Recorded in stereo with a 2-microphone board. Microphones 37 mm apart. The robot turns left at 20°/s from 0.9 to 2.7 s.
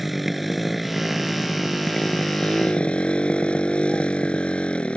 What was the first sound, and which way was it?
A motorcycle, straight behind.